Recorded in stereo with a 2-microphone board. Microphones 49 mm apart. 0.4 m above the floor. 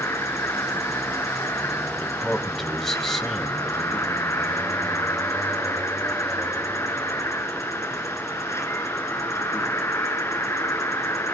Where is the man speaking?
5° left (ahead or behind), 2.5 m.